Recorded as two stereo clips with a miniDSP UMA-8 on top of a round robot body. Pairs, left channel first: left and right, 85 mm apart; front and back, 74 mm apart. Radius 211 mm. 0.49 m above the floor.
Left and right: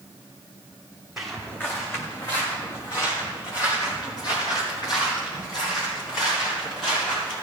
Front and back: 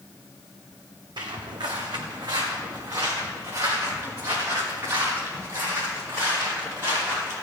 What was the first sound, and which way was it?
Footsteps, 175° right.